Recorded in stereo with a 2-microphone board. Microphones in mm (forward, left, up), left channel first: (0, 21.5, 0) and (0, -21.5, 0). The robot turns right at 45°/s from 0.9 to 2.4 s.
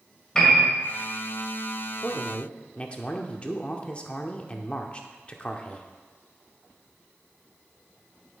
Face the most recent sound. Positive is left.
turn(degrees=25)  # may be behind; listen again after turning